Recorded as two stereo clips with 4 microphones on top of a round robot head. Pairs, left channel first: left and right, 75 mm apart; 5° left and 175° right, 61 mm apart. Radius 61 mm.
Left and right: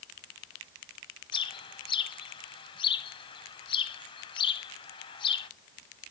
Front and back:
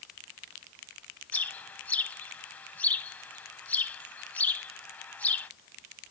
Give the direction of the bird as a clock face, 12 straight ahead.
10 o'clock.